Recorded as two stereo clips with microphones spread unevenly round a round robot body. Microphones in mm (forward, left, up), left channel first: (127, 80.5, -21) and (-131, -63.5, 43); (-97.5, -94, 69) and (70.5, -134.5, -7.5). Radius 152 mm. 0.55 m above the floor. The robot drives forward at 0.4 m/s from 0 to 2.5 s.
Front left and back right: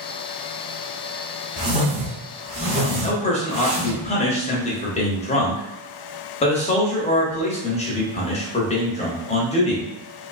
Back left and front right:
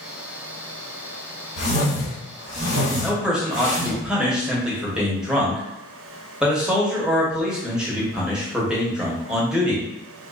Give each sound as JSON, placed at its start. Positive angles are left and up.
{"t": 1.6, "sound": "a whoosh", "azimuth_deg": 130, "distance_m": 1.5}
{"t": 3.0, "sound": "a man speaking", "azimuth_deg": 20, "distance_m": 0.8}